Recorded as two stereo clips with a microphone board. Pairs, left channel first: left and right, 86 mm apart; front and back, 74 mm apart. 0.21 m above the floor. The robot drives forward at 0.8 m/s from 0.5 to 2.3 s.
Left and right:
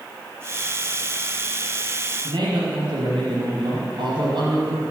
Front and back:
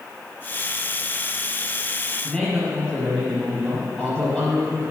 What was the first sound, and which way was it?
A man speaking, 80° right.